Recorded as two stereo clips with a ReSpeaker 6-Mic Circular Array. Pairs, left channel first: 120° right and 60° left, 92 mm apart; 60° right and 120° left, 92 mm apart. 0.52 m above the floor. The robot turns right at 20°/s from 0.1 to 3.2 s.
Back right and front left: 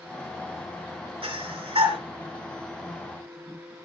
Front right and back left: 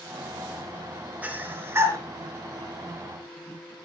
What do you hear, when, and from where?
1.2 s breathing: 50° left, 3.5 m; by 2.0 s 65° left, 3.5 m